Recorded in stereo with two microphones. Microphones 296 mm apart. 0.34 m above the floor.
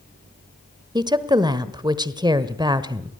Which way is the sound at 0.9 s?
15° right (ahead or behind).